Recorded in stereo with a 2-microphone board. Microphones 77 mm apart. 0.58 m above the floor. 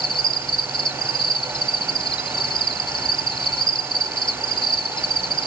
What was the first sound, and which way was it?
An insect, 75° left (ahead or behind).